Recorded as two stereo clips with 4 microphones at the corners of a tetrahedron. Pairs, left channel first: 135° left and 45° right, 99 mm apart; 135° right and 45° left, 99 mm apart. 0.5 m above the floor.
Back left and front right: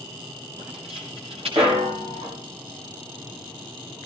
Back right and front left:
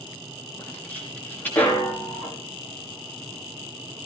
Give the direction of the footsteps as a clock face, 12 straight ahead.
2 o'clock.